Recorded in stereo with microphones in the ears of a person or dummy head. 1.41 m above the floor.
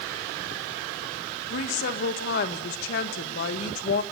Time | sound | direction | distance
1.5 | a woman speaking | 60° left (ahead or behind) | 1.6 m